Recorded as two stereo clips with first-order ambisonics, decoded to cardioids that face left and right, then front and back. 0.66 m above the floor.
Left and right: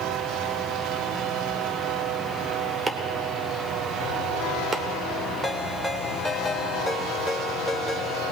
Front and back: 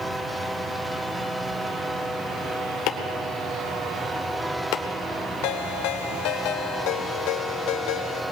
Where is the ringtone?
5° left, 1.3 m.